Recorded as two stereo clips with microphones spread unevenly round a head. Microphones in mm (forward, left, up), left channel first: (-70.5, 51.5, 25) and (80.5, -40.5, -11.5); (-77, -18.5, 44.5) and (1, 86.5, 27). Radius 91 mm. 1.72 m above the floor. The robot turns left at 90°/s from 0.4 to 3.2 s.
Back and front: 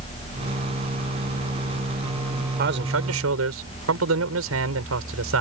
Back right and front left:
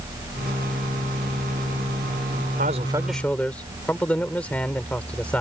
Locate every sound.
2.6 s a man speaking: 10° left; by 5.4 s 45° right